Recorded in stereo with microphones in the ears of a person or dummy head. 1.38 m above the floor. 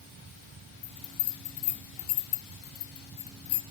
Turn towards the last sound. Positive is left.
turn(degrees=25)  # may be behind; listen again after turning